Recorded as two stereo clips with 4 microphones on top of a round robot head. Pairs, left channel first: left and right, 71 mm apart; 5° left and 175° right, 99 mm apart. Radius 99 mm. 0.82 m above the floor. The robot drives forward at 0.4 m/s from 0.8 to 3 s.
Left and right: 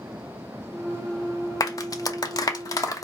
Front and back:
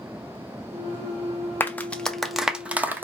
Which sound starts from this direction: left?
A clap, at 1.6 s.